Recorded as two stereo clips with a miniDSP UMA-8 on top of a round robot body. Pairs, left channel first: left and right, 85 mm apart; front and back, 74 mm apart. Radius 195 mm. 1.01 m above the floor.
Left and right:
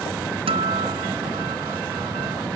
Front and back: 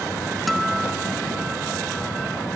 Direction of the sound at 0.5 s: 90° right.